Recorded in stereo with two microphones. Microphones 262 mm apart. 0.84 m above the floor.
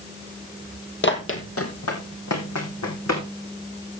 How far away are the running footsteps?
About 1.5 m.